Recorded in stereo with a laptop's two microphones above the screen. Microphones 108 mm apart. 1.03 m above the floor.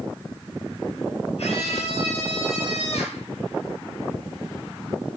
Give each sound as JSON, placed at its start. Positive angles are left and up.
{"t": 1.4, "sound": "a scream", "side_deg": 75, "distance_m": 7.0}